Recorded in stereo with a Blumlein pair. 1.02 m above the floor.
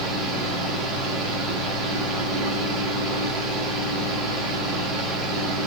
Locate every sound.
0.0 s a fan: 25° right, 1.4 m